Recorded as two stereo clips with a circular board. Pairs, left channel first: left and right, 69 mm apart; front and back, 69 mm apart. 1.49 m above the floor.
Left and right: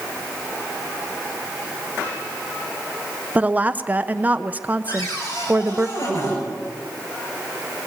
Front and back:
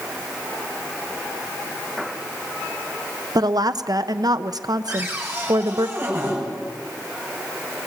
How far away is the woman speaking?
About 0.9 m.